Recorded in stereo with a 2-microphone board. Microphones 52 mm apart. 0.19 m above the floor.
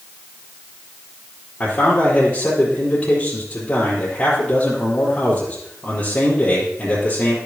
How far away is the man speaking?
About 3.5 m.